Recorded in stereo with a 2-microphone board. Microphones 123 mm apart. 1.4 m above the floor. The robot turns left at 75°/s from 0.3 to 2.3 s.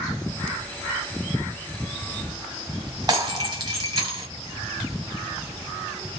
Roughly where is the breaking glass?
Right.